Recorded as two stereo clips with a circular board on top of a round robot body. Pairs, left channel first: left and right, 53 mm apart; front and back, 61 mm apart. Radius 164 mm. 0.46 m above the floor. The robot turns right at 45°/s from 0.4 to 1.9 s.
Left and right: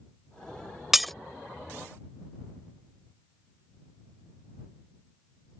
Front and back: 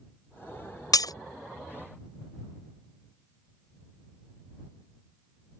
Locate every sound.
0.9 s breaking glass: 5° right; by 1.1 s 5° left